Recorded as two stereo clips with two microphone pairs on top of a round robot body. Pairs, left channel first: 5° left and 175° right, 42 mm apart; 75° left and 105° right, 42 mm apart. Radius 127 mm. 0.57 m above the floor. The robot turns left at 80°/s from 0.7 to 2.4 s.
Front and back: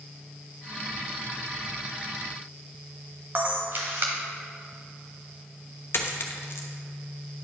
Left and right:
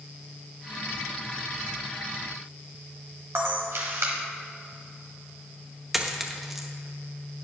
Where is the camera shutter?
130° right, 1.0 m.